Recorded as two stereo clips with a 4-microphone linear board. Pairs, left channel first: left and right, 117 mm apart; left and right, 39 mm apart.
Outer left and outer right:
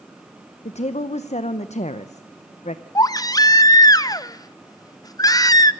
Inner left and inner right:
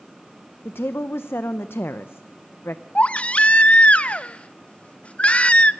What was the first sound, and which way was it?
A woman speaking, 65° left (ahead or behind).